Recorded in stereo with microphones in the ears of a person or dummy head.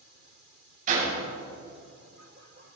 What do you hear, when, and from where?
0.9 s a door slam: 45° right (ahead or behind), 6 m